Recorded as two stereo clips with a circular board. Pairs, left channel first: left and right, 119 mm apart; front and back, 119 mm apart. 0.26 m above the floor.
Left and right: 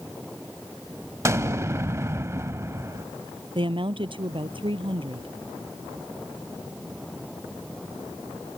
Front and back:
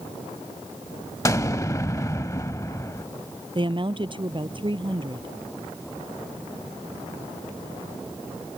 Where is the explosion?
45° right.